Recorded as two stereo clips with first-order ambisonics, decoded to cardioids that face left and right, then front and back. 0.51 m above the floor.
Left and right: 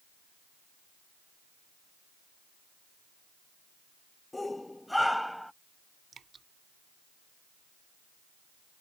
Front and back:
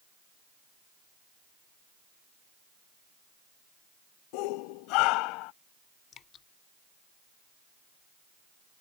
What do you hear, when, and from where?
4.3 s a shout: 10° left; by 5.5 s straight ahead
6.1 s dripping: 30° right